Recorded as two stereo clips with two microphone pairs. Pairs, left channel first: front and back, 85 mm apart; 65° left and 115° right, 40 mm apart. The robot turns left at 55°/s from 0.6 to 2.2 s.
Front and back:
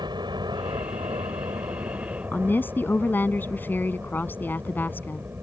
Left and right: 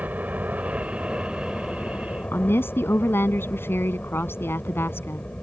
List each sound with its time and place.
0.0 s a helicopter: 155° right; by 5.4 s 120° left
2.3 s a woman speaking: 70° left